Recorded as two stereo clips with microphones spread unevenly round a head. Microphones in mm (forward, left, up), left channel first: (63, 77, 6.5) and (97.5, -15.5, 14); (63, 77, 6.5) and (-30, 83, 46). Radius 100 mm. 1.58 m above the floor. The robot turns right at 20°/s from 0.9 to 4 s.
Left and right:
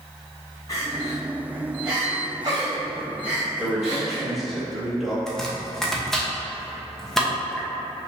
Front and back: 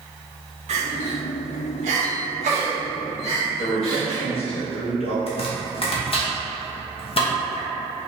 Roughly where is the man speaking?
Ahead.